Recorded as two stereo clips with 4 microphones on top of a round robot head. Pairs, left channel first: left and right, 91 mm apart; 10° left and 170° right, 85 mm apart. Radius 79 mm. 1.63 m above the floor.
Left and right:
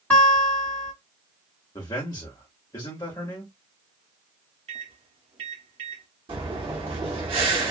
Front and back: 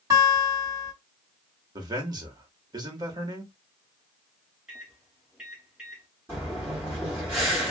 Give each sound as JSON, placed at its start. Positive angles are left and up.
{"t": 0.1, "sound": "a guitar", "azimuth_deg": 165, "distance_m": 1.8}
{"t": 1.8, "sound": "a man speaking", "azimuth_deg": 150, "distance_m": 1.3}
{"t": 4.7, "sound": "a microwave", "azimuth_deg": -85, "distance_m": 0.7}
{"t": 6.3, "sound": "breathing", "azimuth_deg": -105, "distance_m": 1.5}